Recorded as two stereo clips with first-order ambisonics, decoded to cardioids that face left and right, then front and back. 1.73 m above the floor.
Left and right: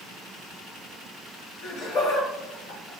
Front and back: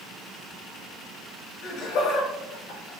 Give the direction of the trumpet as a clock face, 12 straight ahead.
No trumpet in this recording.